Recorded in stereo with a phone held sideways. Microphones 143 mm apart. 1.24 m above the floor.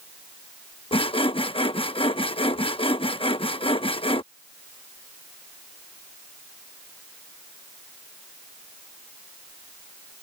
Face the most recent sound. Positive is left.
turn(degrees=40)  # may be behind; listen again after turning